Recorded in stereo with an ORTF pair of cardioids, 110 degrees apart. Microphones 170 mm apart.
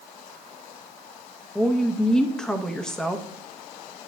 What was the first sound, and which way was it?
A woman speaking, 5° left.